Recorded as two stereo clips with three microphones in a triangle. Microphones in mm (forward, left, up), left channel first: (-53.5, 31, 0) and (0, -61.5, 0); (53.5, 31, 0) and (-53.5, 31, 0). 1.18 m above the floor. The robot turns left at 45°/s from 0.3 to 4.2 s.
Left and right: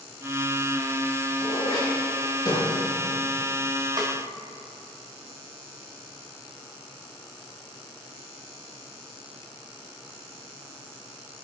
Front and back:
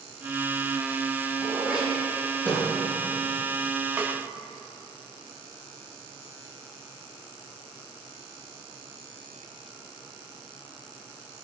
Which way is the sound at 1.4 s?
115° left.